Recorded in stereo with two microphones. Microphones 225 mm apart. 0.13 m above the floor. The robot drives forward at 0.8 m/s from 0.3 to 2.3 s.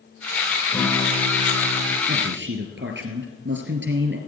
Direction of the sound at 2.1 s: 55° right (ahead or behind).